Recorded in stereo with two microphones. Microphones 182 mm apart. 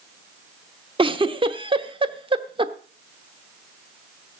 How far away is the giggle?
About 1.0 m.